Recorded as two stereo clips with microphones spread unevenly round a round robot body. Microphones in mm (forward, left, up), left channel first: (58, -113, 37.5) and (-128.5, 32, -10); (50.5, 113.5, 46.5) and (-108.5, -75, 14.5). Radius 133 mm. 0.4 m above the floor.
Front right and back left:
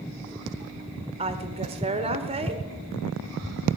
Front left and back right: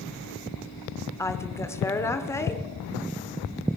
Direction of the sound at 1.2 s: 135° left.